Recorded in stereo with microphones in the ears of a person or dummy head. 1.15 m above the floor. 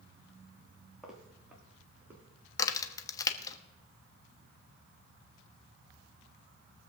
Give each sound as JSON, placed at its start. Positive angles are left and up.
{"t": 1.0, "sound": "footsteps", "side_deg": -5, "distance_m": 3.5}
{"t": 2.6, "sound": "a crack", "side_deg": 20, "distance_m": 1.1}